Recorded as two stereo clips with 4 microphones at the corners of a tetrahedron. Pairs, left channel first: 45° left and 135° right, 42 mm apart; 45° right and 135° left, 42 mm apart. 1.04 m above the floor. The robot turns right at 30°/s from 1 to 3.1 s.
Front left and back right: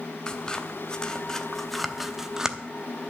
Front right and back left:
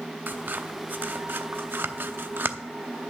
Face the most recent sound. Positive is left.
turn(degrees=170)